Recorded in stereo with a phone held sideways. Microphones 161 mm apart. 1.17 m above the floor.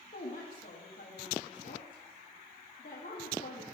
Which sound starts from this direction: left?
A woman speaking, at 0.1 s.